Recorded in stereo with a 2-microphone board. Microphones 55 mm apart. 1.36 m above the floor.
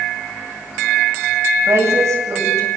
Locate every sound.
1.7 s a woman speaking: 60° right (ahead or behind), 9.5 m